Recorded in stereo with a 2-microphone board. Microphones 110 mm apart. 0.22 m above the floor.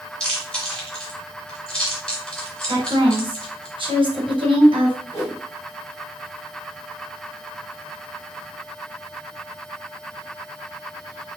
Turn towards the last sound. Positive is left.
turn(degrees=25)  # may be behind; listen again after turning